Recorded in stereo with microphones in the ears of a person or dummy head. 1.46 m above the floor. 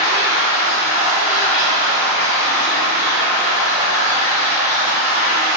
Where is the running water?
40° left (ahead or behind), 1.8 m.